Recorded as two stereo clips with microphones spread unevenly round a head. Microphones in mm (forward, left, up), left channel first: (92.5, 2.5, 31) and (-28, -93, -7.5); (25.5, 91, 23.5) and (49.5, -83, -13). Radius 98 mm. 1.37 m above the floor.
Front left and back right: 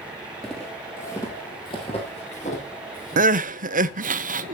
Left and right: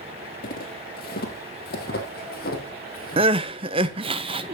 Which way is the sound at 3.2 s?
135° right.